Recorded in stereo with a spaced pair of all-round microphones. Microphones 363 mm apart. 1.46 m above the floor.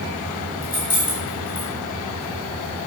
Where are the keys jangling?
70° left (ahead or behind), 4 m.